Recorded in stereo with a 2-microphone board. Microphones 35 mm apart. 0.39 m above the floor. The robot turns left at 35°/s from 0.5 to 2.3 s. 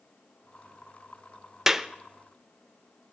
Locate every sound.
1.7 s a clap: 10° right (ahead or behind), 0.6 m; by 1.9 s 15° right (ahead or behind), 0.6 m